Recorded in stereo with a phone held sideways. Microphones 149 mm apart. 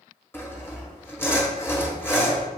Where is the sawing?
15° left (ahead or behind), 1.0 m.